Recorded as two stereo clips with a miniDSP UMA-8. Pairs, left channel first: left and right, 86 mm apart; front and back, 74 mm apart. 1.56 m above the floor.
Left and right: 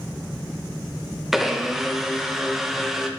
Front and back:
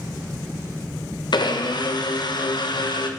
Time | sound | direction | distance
1.3 | a blender | 5° right | 1.4 m